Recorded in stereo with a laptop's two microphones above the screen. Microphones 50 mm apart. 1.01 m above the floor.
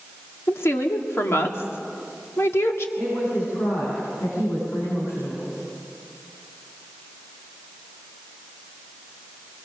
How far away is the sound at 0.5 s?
About 2.0 m.